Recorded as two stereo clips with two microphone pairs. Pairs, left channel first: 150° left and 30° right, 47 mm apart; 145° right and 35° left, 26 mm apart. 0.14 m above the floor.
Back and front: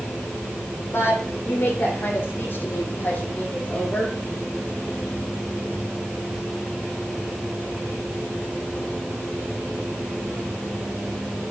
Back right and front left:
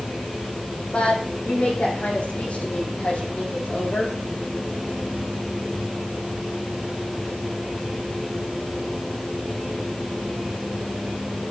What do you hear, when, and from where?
0.9 s a woman speaking: straight behind, 8.5 m; by 4.2 s 150° right, 7 m